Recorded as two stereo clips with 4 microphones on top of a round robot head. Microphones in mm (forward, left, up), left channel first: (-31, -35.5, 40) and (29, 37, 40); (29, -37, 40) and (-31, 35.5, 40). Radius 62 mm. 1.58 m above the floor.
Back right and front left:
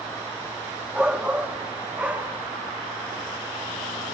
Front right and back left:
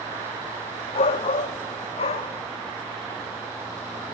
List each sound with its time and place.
0.9 s a shout: 30° right, 0.8 m; by 2.4 s 25° right, 1.7 m